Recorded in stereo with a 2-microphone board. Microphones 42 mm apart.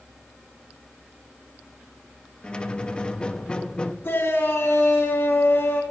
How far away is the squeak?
About 0.6 m.